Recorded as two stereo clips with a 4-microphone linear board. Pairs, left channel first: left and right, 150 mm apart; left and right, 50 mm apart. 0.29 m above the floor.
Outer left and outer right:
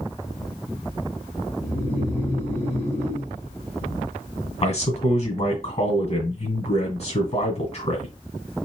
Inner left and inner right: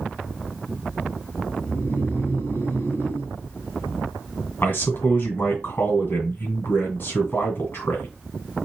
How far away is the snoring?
About 2 m.